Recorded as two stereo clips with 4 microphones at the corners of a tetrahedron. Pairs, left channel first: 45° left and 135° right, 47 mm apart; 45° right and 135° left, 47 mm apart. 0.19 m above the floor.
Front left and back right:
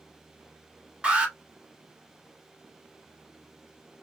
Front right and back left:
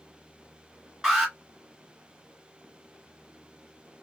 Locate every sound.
1.0 s an alarm: 170° right, 1.7 m